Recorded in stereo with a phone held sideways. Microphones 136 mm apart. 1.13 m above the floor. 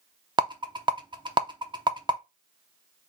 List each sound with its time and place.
0.4 s a rattle: 35° right (ahead or behind), 0.6 m